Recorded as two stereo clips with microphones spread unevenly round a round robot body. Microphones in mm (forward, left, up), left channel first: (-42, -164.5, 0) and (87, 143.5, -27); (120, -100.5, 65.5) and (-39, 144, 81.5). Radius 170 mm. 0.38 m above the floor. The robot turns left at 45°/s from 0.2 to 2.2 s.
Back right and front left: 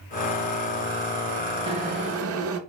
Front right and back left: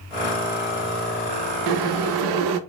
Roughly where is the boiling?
Behind left.